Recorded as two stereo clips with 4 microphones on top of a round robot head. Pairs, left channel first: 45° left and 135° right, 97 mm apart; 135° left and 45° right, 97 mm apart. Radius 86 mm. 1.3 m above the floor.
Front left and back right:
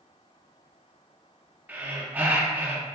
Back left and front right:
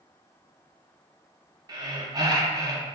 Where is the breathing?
70° right, 0.6 m.